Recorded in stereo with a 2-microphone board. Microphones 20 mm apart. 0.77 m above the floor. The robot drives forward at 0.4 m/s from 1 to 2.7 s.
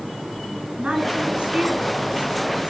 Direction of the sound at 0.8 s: 70° right (ahead or behind).